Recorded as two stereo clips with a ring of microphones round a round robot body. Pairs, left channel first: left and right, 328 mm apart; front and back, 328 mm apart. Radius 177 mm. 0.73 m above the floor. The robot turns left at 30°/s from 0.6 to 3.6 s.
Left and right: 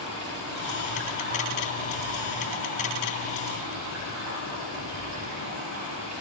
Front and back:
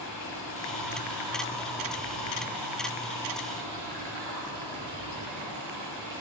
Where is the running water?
55° right, 5 m; by 6.2 s 145° right, 5 m.